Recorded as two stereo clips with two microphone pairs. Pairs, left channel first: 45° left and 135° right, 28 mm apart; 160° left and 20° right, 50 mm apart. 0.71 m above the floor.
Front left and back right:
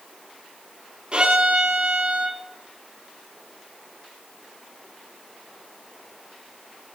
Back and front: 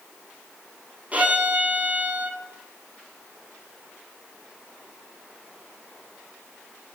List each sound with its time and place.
1.1 s a violin: 85° right, 3 m